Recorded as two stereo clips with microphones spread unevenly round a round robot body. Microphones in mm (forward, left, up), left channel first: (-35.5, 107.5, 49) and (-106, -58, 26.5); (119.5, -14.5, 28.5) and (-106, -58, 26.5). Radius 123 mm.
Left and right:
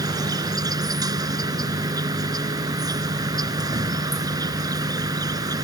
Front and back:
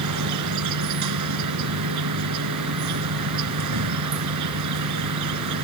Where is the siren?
I don't hear a siren.